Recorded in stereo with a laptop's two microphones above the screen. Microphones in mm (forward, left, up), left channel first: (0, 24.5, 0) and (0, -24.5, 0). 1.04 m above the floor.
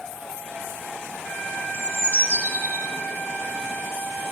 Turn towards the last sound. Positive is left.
turn(degrees=-50)  # may be behind; listen again after turning